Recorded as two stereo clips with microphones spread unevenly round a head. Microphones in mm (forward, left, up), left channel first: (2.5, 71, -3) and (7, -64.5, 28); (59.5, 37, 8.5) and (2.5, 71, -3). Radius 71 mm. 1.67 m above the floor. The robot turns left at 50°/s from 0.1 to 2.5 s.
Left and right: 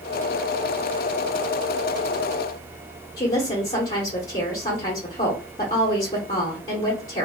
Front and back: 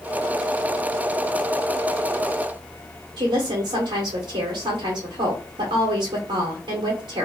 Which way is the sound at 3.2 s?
155° left.